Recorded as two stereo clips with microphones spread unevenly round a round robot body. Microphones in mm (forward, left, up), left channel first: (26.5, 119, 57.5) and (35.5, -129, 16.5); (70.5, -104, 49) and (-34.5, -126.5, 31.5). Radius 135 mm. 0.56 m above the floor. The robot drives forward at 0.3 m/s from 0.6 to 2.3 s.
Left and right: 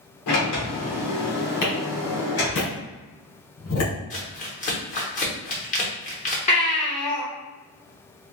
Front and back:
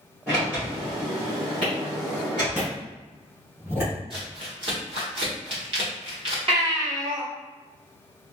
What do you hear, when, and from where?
0.3 s a sliding door: 110° left, 1.8 m; by 2.6 s 125° left, 2 m
1.6 s a clap: 110° left, 2.0 m; by 3.9 s 115° left, 2 m
4.1 s crumpling: 155° left, 1.1 m
6.5 s a baby crying: 160° left, 1.3 m